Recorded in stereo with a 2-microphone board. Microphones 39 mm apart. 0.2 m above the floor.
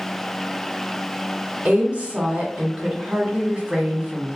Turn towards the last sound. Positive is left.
turn(degrees=-30)  # may be behind; listen again after turning